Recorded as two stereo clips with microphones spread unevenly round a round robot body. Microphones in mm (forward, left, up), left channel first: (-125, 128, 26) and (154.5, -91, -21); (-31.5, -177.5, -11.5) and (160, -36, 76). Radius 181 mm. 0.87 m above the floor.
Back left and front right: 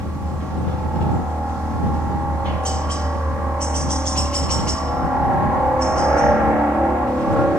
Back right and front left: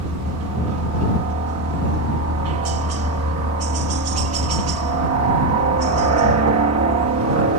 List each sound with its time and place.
0.0 s a helicopter: 50° left